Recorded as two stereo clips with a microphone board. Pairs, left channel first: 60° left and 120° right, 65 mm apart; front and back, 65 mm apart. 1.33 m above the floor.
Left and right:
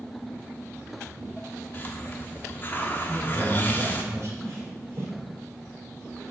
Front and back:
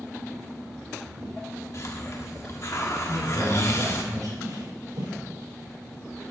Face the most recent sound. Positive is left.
turn(degrees=-170)